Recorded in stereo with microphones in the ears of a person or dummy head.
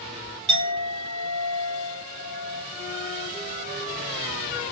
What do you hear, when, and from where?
0.5 s a clink: 25° right (ahead or behind), 1.2 m
2.7 s a flute: 10° right (ahead or behind), 0.9 m